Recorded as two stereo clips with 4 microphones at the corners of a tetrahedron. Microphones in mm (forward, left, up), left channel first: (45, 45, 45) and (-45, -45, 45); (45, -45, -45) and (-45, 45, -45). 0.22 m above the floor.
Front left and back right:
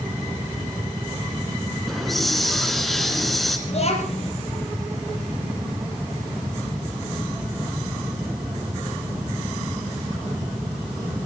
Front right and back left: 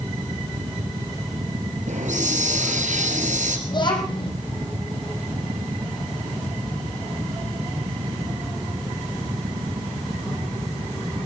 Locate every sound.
1.9 s a hiss: 135° left, 2.5 m
3.7 s a child speaking: 10° left, 5 m